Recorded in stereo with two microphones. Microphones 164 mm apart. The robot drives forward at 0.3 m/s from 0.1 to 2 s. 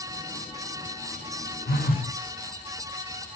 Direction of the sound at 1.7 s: 70° left (ahead or behind).